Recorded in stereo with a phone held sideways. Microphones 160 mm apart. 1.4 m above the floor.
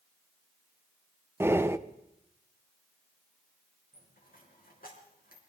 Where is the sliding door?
I don't hear a sliding door.